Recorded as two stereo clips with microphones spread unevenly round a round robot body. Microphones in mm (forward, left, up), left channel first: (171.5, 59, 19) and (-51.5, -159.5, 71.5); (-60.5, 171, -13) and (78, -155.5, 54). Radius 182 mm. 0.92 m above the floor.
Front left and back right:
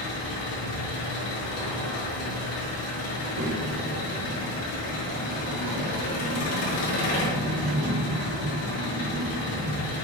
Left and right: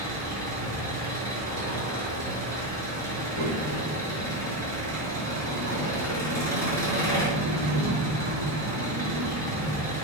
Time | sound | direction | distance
0.0 | an engine running | 30° left | 5.5 m
3.1 | a child speaking | 125° right | 3 m